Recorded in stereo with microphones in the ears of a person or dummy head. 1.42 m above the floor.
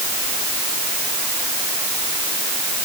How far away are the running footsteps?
No running footsteps in this recording.